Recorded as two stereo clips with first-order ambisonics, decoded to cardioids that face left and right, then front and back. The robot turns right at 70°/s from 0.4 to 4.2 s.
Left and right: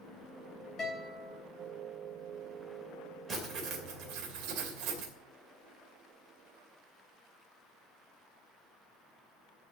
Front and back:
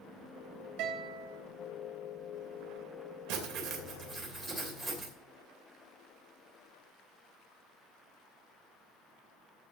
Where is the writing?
165° right, 2.5 m; by 5.1 s 100° right, 2.5 m.